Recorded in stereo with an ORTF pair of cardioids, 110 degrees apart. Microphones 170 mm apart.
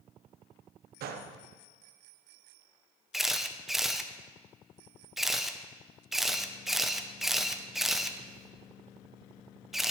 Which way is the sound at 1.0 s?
65° right.